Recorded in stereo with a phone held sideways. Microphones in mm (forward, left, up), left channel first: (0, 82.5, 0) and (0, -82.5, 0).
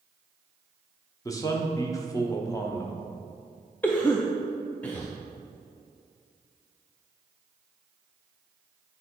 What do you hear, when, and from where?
1.2 s a man speaking: 20° left (ahead or behind), 1.0 m
3.8 s a cough: 10° left (ahead or behind), 0.5 m